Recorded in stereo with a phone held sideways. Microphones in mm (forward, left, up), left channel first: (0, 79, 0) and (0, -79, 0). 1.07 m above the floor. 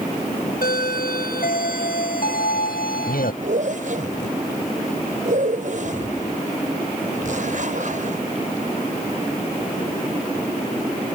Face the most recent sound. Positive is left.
turn(degrees=-60)  # may be behind; listen again after turning